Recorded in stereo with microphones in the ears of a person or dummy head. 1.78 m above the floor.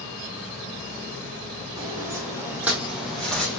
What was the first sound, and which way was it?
Footsteps, 20° right (ahead or behind).